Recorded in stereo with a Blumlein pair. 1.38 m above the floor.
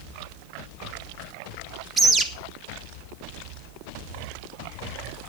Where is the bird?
10° right, 1.4 m.